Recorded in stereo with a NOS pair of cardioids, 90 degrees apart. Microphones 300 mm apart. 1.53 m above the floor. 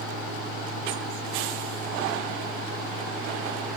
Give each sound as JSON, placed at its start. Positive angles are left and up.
{"t": 0.0, "sound": "a fan", "azimuth_deg": -50, "distance_m": 7.0}